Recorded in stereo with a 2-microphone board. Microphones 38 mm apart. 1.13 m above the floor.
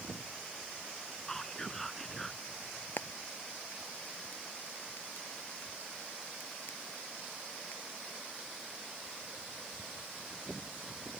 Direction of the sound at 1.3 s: 10° left (ahead or behind).